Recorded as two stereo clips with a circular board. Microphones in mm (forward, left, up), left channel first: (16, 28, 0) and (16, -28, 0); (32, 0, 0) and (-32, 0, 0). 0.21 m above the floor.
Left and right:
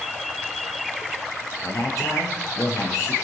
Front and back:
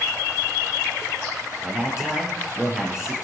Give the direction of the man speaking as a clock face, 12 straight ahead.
9 o'clock.